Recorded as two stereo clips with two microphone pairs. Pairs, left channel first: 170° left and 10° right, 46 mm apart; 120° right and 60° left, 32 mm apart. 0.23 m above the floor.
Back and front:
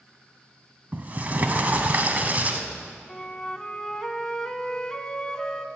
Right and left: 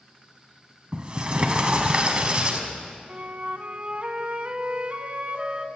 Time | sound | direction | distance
0.9 | a sliding door | 25° left | 1.0 m
3.1 | a flute | 95° left | 0.7 m